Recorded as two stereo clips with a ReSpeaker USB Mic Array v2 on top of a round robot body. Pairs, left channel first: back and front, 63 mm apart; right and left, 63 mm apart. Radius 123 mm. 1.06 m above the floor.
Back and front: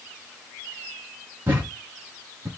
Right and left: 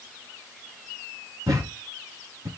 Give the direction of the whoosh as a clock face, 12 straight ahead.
I don't hear a whoosh.